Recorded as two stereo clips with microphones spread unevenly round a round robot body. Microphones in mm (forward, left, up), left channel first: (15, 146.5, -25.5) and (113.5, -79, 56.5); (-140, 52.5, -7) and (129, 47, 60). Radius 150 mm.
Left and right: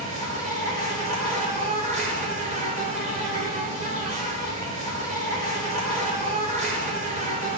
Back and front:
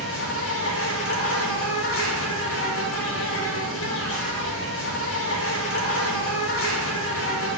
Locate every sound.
0.0 s an insect: 140° right, 1.5 m